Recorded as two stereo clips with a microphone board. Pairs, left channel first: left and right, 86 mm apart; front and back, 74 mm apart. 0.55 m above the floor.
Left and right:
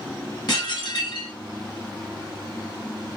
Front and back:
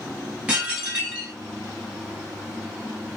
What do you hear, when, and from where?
0.5 s dishes clattering: 110° left, 1.5 m